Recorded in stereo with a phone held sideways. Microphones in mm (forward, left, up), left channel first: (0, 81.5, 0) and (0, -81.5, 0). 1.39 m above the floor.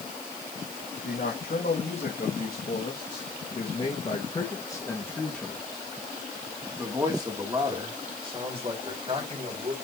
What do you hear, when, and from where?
1.0 s a man speaking: 75° left (ahead or behind), 3 m; by 9.7 s 40° right (ahead or behind), 4 m